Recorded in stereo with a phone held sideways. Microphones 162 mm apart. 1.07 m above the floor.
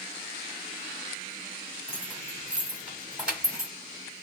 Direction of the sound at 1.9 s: 5° right (ahead or behind).